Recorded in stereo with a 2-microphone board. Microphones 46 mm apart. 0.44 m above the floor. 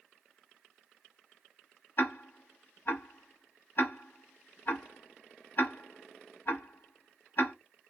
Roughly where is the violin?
No violin in this recording.